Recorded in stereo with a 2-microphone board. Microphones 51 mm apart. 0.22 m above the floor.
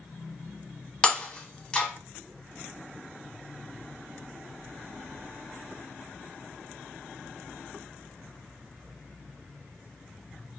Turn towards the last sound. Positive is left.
turn(degrees=20)  # may be behind; listen again after turning